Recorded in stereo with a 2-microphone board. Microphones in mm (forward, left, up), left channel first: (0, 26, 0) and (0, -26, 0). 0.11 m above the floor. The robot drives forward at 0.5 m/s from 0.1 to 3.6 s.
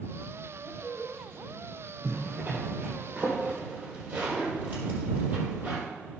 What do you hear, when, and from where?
0.6 s a woman speaking: 10° left (ahead or behind), 2.5 m; by 1.9 s 15° left (ahead or behind), 1.8 m
2.0 s a zipper: 40° right (ahead or behind), 3.5 m; by 5.9 s 35° right (ahead or behind), 4 m